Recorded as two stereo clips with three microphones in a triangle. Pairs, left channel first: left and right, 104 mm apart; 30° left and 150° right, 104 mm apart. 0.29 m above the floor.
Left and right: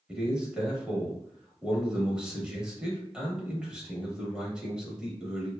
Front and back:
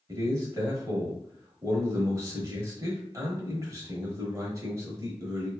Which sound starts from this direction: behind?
A man speaking, at 0.1 s.